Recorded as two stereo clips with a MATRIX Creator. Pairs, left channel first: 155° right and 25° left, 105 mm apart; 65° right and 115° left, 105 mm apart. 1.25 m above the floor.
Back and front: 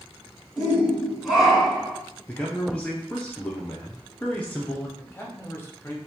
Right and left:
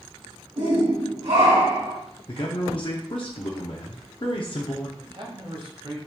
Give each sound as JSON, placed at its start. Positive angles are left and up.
{"t": 0.6, "sound": "a shout", "azimuth_deg": 105, "distance_m": 1.0}
{"t": 2.3, "sound": "a man speaking", "azimuth_deg": -85, "distance_m": 0.5}
{"t": 5.0, "sound": "a man speaking", "azimuth_deg": 140, "distance_m": 0.9}